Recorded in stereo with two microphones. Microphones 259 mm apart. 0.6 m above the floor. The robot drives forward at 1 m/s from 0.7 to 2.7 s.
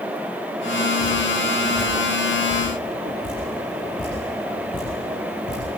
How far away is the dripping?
About 9.5 m.